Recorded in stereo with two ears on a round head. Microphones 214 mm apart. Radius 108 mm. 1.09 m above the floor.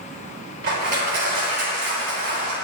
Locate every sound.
0.6 s crushing: 45° right (ahead or behind), 5 m